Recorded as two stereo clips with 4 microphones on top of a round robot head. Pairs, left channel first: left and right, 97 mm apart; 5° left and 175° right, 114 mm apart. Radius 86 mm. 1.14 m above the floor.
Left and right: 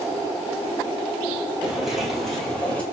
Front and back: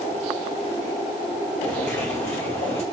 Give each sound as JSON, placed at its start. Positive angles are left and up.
{"t": 1.6, "sound": "footsteps", "azimuth_deg": -10, "distance_m": 1.6}